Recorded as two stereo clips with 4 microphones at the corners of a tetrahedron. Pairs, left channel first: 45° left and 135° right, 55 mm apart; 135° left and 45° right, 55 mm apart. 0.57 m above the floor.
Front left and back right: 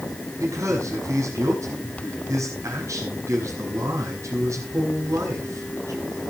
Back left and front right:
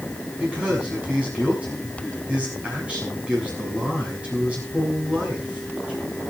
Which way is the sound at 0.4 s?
110° right.